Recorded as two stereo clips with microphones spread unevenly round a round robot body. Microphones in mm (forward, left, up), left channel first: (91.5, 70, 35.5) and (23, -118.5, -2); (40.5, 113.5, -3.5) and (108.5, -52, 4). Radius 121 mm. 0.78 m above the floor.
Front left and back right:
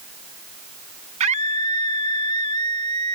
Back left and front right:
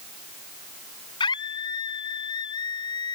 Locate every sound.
1.2 s a scream: 175° right